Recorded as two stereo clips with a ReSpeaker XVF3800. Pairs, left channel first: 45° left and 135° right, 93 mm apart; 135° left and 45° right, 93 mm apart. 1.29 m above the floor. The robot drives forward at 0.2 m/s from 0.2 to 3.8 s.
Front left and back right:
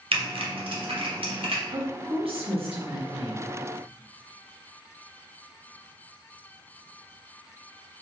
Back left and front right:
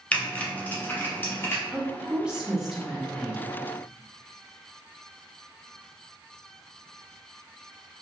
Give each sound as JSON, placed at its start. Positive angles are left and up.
{"t": 0.1, "sound": "typing on a keyboard", "azimuth_deg": -150, "distance_m": 0.6}
{"t": 1.7, "sound": "a woman speaking", "azimuth_deg": -120, "distance_m": 0.8}